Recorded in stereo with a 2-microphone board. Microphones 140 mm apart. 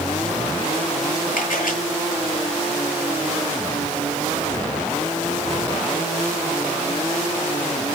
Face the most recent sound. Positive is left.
turn(degrees=85)